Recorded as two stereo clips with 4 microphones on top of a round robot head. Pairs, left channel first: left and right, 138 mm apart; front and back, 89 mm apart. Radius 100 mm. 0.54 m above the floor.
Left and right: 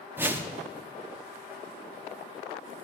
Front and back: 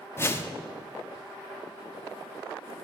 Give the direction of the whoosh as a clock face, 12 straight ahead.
1 o'clock.